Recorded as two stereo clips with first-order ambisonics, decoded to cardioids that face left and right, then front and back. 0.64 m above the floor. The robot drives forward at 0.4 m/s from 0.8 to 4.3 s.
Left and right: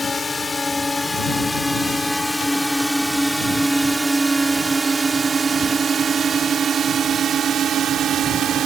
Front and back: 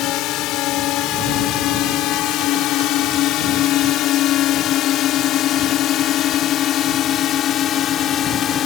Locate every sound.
0.0 s a drone: 20° left; by 8.7 s 45° right